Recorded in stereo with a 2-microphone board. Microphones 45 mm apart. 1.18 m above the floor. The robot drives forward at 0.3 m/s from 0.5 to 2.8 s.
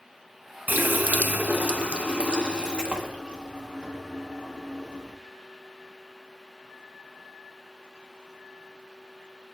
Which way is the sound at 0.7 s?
45° right (ahead or behind).